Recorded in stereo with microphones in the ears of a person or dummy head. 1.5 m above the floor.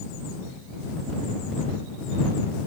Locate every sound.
Only background noise.